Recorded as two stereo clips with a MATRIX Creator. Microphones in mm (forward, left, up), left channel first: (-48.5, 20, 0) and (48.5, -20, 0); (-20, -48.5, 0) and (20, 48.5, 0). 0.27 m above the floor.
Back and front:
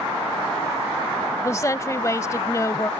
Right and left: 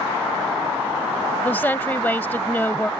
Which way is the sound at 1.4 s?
170° right.